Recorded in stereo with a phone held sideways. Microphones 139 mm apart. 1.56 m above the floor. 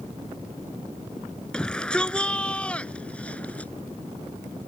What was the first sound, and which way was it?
A shout, 5° left (ahead or behind).